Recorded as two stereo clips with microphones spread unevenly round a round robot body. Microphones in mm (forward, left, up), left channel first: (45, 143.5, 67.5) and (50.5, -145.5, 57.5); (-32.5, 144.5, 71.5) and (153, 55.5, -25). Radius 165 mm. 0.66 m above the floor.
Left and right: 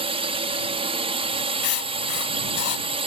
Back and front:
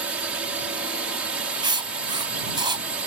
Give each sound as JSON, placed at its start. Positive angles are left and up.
{"t": 0.0, "sound": "a drone", "azimuth_deg": -40}
{"t": 1.6, "sound": "writing", "azimuth_deg": 55}